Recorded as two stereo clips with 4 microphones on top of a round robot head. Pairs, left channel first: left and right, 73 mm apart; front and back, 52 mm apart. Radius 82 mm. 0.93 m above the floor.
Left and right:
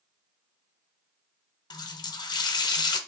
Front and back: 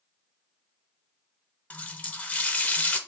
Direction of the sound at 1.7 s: 60° left.